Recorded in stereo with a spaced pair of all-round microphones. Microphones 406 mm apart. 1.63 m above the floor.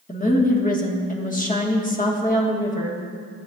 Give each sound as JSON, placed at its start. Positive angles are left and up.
{"t": 0.1, "sound": "a woman speaking", "side_deg": 20, "distance_m": 1.4}